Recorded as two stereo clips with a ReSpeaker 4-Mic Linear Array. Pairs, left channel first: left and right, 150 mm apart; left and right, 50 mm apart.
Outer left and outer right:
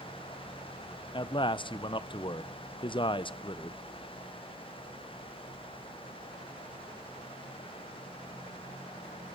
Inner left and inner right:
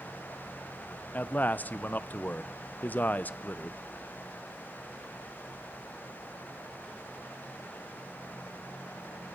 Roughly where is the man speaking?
Left.